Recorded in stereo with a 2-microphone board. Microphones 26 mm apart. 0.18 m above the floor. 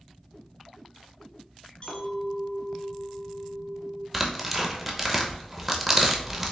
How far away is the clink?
About 1.0 m.